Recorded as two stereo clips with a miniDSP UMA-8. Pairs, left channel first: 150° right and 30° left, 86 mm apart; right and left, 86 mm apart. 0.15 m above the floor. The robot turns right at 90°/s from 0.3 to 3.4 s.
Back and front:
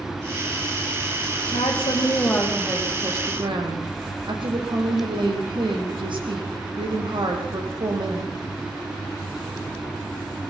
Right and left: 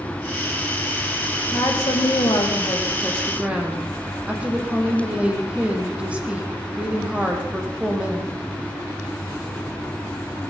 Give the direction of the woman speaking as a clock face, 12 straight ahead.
5 o'clock.